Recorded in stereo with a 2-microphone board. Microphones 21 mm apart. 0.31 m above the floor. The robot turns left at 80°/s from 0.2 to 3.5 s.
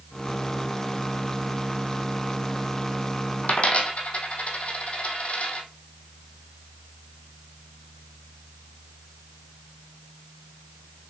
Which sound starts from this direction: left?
A dropped coin, at 3.4 s.